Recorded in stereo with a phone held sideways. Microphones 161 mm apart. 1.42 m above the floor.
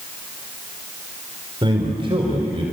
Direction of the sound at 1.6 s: 30° right (ahead or behind).